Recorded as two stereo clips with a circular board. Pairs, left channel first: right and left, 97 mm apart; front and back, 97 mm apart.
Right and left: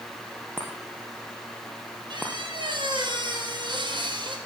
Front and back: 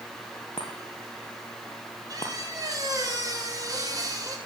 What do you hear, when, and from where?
0.6 s a chime: 20° left, 4 m
2.1 s a squeak: 125° left, 3.5 m